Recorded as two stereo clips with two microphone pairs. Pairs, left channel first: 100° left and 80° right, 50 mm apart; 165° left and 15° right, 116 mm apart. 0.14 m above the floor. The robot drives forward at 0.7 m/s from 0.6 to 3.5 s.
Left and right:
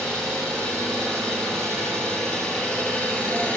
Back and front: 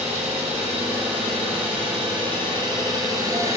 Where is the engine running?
15° left, 3.5 m; by 3.6 s 35° left, 1.8 m.